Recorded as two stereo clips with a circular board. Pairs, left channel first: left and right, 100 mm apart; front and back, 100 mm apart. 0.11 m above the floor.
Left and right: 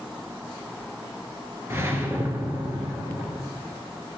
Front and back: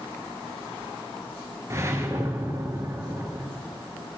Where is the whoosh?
140° right, 1.2 m.